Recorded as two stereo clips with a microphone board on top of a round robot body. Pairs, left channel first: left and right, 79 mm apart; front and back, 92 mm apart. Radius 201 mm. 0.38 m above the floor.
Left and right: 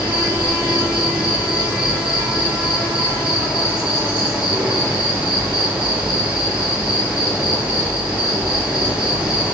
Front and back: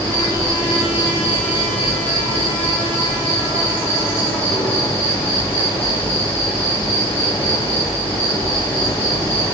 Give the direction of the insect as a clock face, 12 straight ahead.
12 o'clock.